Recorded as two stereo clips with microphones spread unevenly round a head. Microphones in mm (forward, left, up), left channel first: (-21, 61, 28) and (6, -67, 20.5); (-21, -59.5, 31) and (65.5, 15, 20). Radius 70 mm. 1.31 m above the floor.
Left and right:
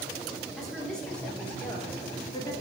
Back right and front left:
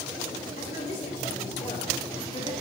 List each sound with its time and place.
0.6 s a woman speaking: 170° right, 3.5 m; by 2.5 s 165° left, 2.5 m